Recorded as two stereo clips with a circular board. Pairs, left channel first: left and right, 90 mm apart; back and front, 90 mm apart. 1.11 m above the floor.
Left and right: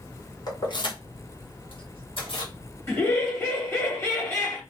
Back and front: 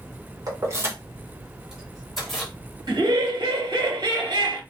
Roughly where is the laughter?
Ahead left.